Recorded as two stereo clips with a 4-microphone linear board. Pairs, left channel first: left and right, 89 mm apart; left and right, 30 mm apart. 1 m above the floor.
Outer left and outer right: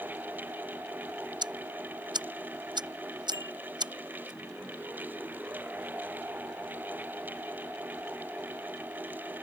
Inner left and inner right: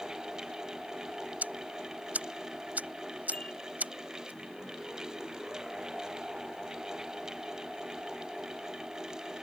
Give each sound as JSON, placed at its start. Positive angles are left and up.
{"t": 1.4, "sound": "ticking", "side_deg": -55}
{"t": 3.3, "sound": "a bicycle bell", "side_deg": 45}